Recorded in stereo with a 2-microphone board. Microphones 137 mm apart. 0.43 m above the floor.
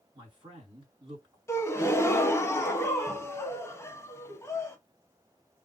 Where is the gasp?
20° left (ahead or behind), 0.7 m.